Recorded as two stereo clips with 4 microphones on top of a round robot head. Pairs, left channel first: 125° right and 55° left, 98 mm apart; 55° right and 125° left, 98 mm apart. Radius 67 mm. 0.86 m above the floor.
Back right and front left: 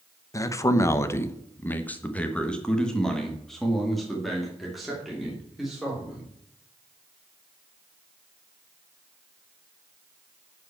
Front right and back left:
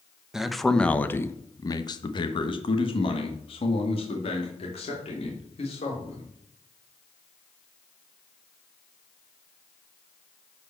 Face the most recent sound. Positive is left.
turn(degrees=-30)